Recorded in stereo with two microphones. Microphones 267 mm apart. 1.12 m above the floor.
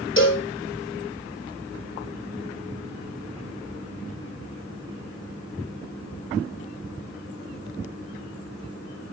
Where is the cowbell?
45° left (ahead or behind), 2 m.